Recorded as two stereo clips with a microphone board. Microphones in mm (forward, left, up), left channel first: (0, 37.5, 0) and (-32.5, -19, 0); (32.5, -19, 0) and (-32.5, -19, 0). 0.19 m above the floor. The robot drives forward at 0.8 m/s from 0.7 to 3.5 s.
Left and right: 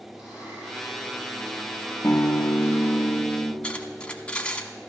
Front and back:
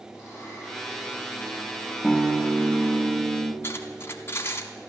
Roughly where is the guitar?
Left.